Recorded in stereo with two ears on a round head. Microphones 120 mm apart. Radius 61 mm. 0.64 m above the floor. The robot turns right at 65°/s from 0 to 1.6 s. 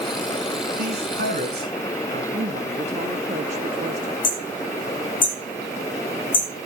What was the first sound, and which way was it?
A man speaking, 80° right.